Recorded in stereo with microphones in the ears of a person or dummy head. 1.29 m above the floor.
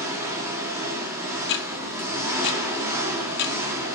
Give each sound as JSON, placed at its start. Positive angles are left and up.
{"t": 0.0, "sound": "an engine running", "side_deg": -15, "distance_m": 1.6}
{"t": 1.4, "sound": "ticking", "side_deg": 60, "distance_m": 0.8}